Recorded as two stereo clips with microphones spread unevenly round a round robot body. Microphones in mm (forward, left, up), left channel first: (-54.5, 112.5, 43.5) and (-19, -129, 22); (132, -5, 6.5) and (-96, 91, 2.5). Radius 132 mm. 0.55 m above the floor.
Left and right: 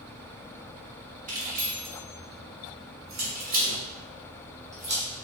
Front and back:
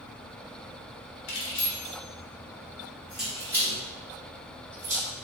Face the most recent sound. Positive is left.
turn(degrees=-140)